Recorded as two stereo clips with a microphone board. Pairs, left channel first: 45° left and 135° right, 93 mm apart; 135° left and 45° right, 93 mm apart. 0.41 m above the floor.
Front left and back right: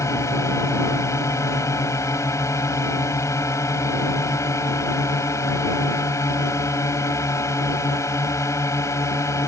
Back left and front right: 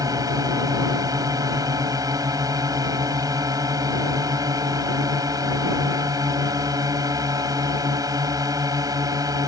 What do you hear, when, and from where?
0.0 s a drone: 5° right